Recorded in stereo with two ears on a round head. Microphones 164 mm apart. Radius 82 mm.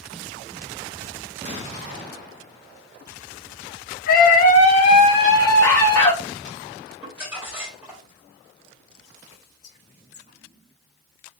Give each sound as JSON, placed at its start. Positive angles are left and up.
{"t": 4.1, "sound": "a scream", "side_deg": 50, "distance_m": 0.8}
{"t": 7.0, "sound": "crumpling", "side_deg": -10, "distance_m": 1.9}
{"t": 9.3, "sound": "whispering", "side_deg": 30, "distance_m": 1.4}